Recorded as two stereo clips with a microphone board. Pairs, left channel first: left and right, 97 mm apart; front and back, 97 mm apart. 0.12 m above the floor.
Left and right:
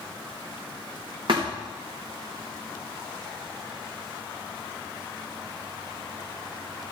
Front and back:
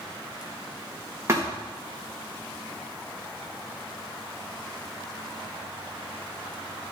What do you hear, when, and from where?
1.3 s a thud: 120° right, 3 m